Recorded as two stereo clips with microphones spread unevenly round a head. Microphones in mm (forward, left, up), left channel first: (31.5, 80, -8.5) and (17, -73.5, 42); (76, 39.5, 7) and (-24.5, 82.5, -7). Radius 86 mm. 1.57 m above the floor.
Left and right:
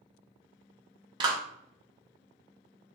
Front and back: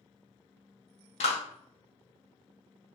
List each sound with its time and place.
1.2 s a clap: 40° right, 1.5 m